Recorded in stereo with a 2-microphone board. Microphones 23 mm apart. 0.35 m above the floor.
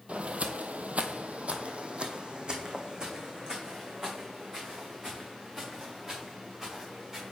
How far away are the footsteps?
About 0.7 m.